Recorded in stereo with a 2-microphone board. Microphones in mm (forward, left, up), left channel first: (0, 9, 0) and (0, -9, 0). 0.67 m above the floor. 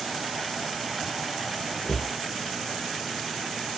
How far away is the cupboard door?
About 0.6 m.